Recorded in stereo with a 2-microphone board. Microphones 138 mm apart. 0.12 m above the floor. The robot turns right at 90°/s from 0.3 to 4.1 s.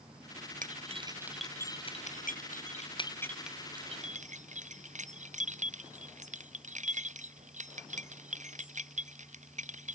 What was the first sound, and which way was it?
Keys jangling, 70° right (ahead or behind).